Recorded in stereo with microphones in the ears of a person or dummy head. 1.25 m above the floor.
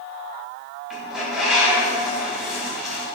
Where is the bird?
Centre (ahead or behind), 1.4 m.